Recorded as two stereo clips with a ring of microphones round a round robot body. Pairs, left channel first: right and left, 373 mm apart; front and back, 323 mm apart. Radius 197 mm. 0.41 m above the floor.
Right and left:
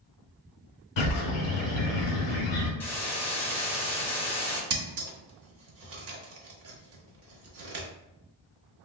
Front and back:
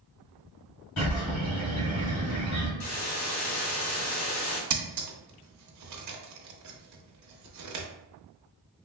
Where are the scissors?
145° left, 0.8 m.